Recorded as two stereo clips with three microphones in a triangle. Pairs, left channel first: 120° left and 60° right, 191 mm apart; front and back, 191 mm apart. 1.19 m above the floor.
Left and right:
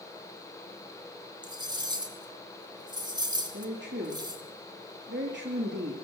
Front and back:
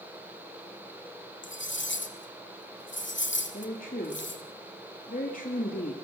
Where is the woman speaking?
45° right, 2.5 m.